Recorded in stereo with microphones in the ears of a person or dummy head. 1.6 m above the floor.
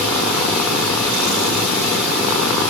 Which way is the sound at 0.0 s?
Centre (ahead or behind).